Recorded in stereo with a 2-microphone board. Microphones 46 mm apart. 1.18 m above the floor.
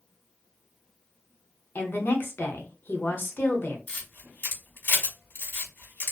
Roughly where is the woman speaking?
Left.